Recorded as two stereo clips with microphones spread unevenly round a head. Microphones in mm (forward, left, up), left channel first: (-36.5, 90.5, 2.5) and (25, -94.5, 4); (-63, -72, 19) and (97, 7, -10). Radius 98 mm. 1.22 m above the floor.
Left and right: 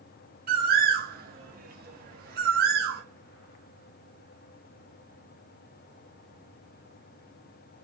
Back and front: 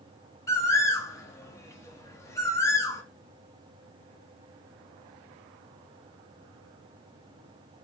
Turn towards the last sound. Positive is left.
turn(degrees=-95)